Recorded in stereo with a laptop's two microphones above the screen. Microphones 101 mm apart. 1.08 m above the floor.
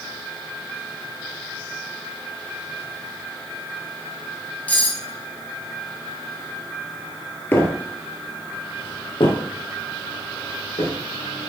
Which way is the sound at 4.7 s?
15° left (ahead or behind).